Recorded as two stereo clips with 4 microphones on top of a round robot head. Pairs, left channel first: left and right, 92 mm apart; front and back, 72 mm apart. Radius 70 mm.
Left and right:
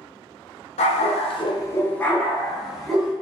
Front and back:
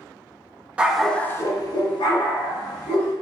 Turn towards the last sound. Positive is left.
turn(degrees=-5)